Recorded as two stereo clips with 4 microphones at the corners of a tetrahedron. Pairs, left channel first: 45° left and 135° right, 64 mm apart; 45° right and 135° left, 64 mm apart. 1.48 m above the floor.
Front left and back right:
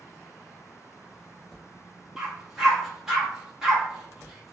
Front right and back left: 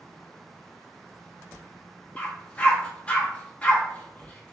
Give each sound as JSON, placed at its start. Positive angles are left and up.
{"t": 2.2, "sound": "a dog barking", "azimuth_deg": -65, "distance_m": 0.9}